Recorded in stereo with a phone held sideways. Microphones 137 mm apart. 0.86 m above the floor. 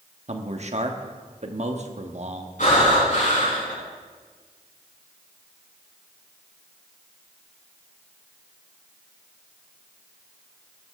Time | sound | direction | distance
0.3 | a man speaking | 55° right (ahead or behind) | 1.2 m
2.6 | breathing | 70° left (ahead or behind) | 6.5 m